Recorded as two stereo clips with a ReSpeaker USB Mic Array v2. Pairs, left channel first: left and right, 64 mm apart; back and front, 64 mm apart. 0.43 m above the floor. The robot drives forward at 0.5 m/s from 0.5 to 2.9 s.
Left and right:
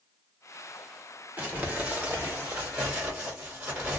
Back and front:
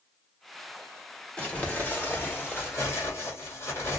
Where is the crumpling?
130° right, 1.3 m; by 4.0 s 160° right, 1.7 m.